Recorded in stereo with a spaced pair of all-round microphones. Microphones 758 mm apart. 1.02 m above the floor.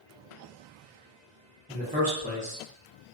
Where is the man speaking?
10° right (ahead or behind), 0.7 m.